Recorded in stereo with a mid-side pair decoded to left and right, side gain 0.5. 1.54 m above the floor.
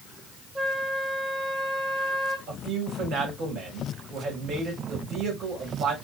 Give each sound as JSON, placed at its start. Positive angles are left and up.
{"t": 0.6, "sound": "a flute", "azimuth_deg": -20, "distance_m": 1.2}
{"t": 2.5, "sound": "a man speaking", "azimuth_deg": -65, "distance_m": 2.5}